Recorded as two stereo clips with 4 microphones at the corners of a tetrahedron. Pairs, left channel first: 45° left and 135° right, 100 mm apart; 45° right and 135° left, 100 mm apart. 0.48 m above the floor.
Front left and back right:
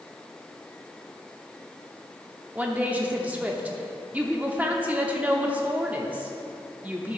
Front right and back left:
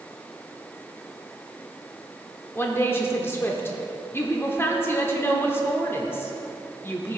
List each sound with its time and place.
2.5 s a woman speaking: 75° right, 0.8 m